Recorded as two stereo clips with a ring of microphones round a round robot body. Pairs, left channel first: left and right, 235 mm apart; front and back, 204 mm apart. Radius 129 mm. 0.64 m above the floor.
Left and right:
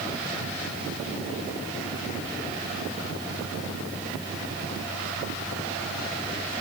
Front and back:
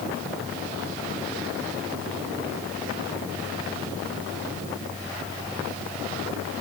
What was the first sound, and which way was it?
Only background noise.